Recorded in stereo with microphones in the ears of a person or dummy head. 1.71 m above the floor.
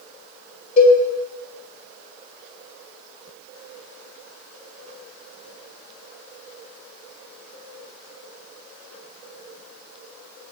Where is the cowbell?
35° left (ahead or behind), 1.6 m.